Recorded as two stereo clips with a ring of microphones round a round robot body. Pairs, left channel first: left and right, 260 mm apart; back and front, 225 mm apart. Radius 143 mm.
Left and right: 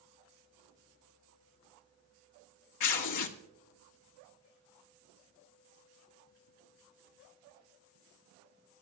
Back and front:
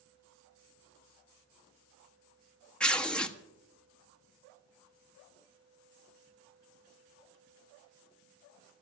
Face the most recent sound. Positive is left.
turn(degrees=95)